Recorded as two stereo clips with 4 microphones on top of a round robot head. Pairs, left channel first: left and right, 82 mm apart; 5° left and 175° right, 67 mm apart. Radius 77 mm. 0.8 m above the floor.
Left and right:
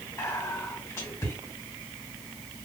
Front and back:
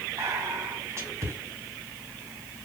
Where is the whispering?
150° left, 2 m.